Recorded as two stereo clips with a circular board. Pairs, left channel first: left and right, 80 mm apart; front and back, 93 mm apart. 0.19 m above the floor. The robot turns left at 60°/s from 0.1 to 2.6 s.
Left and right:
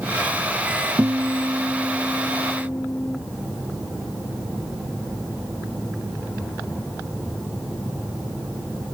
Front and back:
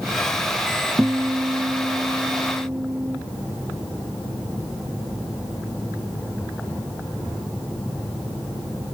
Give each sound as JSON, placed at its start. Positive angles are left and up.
{"t": 1.0, "sound": "a guitar", "azimuth_deg": -130, "distance_m": 0.5}